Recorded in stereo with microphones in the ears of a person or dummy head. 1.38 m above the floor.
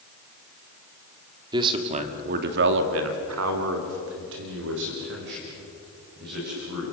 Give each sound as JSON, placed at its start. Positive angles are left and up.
{"t": 1.5, "sound": "a man speaking", "side_deg": -25, "distance_m": 2.5}